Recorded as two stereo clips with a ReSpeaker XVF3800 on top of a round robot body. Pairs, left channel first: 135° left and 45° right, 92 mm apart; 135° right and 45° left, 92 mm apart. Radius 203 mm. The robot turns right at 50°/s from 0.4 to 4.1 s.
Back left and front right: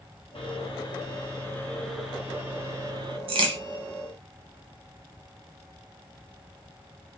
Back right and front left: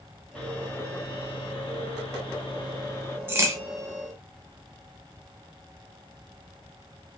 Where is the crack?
20° right, 0.9 m; by 3.6 s 10° right, 0.9 m.